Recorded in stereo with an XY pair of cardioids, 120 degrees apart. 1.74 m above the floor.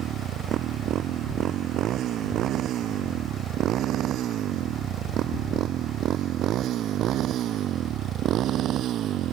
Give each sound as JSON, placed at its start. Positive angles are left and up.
{"t": 0.0, "sound": "a motorcycle", "azimuth_deg": -65}